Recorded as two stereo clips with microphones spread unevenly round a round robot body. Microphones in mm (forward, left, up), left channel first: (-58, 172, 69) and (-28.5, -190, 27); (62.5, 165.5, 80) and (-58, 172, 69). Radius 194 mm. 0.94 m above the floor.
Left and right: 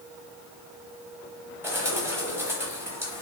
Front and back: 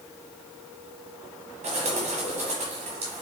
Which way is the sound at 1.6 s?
175° right.